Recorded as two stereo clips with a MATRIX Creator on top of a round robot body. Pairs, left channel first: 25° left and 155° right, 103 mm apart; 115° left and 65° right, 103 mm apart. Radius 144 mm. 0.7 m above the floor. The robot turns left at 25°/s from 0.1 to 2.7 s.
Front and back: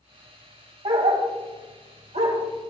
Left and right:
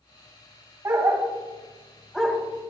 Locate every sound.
0.8 s a dog barking: 125° right, 1.9 m; by 2.4 s 165° right, 1.9 m